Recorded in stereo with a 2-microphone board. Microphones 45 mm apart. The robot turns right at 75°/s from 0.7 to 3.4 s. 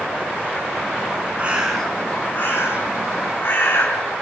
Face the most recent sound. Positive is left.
turn(degrees=120)